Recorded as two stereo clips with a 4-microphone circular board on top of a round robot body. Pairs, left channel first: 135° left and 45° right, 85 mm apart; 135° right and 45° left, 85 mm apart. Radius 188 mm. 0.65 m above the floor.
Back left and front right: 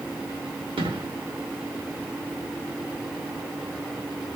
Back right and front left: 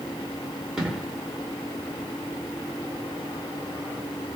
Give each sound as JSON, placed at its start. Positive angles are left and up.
{"t": 0.8, "sound": "an explosion", "azimuth_deg": -40, "distance_m": 1.9}